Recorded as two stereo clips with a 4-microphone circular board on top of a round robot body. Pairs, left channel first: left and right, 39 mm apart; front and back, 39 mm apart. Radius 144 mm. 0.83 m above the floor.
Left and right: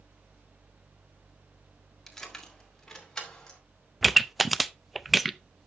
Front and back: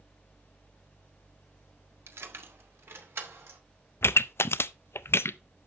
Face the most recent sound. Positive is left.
turn(degrees=-5)